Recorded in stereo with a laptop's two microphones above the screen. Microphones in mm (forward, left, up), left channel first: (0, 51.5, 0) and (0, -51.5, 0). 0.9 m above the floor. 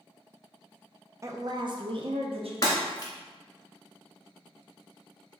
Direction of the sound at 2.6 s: 40° left (ahead or behind).